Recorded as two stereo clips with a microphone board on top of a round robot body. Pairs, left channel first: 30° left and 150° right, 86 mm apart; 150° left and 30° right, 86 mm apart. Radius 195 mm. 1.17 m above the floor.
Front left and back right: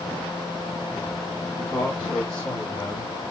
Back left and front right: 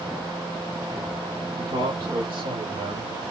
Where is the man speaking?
60° right, 2.5 m; by 3.1 s 40° right, 3 m.